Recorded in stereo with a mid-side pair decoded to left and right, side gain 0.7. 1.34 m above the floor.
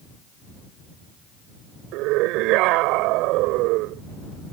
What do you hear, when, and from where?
1.9 s a scream: 65° right